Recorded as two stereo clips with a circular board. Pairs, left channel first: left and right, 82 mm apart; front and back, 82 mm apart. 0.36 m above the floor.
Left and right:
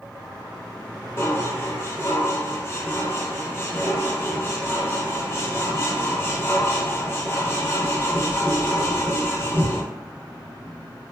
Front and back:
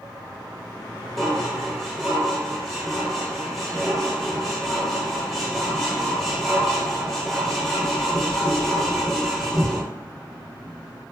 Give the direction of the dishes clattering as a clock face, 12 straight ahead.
9 o'clock.